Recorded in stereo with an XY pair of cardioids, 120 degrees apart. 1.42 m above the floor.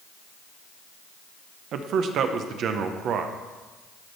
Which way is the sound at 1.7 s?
60° right.